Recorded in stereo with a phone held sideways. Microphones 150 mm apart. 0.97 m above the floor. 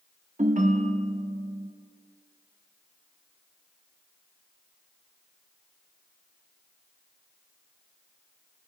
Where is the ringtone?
55° right (ahead or behind), 0.9 m.